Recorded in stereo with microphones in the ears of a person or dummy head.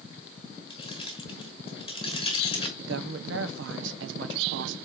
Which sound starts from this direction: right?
A woman speaking, at 2.8 s.